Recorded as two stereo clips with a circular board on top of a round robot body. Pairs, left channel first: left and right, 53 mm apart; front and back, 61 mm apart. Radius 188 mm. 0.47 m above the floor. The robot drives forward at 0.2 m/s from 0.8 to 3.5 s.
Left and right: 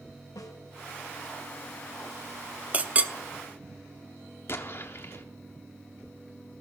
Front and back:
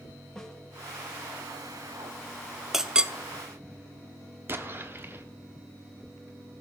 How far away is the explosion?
About 0.9 m.